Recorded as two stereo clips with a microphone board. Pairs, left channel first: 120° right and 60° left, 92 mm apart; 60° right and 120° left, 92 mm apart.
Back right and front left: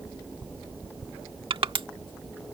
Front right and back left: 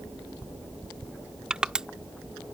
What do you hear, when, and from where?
1.5 s crushing: 40° left